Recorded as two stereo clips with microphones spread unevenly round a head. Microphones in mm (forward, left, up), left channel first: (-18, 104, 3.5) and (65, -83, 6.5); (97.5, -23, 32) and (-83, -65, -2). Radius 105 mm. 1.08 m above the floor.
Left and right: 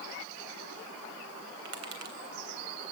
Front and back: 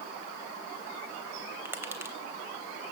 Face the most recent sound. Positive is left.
turn(degrees=-90)